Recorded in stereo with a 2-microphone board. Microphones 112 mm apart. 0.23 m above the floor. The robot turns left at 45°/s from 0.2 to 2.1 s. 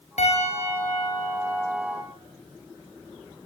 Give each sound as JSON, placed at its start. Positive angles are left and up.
{"t": 0.2, "sound": "a piano", "azimuth_deg": 80, "distance_m": 7.5}